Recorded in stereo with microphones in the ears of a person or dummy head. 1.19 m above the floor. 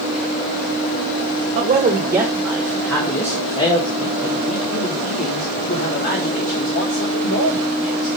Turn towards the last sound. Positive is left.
turn(degrees=60)  # may be behind; listen again after turning